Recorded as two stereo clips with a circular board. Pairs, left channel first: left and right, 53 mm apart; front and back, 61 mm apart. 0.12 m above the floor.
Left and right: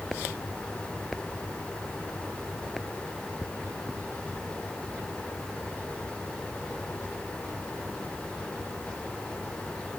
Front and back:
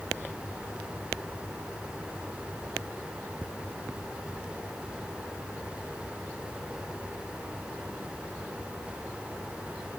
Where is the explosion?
No explosion in this recording.